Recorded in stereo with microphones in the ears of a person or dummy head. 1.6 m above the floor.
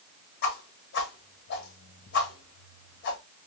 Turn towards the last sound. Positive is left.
turn(degrees=50)  # may be behind; listen again after turning